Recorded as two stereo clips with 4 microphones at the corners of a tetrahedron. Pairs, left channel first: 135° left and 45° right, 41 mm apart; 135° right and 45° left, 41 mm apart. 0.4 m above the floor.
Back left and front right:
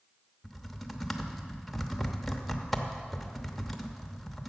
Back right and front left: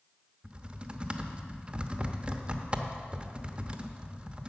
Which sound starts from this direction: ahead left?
Typing on a keyboard, at 0.4 s.